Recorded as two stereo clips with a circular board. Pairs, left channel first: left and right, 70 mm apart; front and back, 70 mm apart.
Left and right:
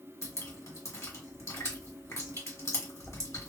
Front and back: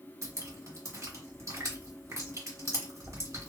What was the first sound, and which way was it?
Dripping, 140° left.